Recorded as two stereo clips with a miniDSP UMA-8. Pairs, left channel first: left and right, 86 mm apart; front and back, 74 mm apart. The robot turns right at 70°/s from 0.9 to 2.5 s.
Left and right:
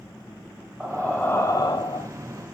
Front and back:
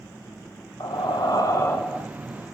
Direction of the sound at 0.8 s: 5° right.